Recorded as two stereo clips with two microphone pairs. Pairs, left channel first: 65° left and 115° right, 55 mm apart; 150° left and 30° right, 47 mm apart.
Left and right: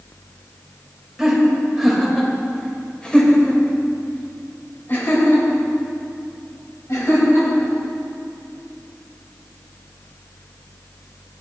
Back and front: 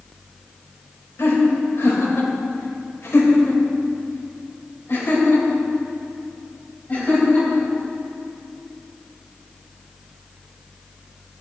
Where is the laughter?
165° left, 3 m; by 7.7 s 90° left, 3.5 m.